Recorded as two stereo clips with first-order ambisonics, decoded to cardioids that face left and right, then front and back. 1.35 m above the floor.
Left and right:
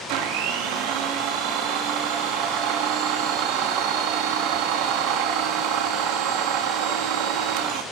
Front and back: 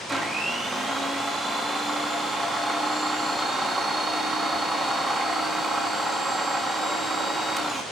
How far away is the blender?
About 2.5 m.